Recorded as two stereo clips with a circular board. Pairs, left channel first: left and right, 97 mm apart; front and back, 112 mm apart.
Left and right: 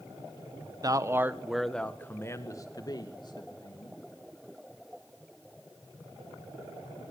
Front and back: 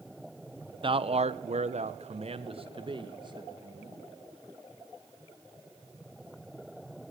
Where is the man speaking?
140° right, 1.4 m; by 4.0 s 125° left, 3.5 m.